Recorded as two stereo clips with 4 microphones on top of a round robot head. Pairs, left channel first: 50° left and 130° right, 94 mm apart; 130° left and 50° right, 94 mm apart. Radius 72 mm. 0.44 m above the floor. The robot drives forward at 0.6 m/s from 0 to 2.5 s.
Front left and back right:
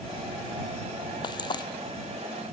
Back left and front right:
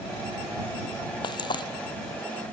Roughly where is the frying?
Left.